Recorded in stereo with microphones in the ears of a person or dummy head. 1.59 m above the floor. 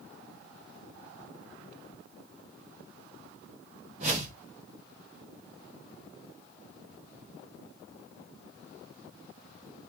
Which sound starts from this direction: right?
A whoosh, at 4.0 s.